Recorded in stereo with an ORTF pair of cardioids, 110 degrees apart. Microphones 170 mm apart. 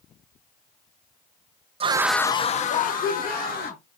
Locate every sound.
1.8 s a scream: 40° right, 0.7 m; by 3.8 s 70° left, 2.5 m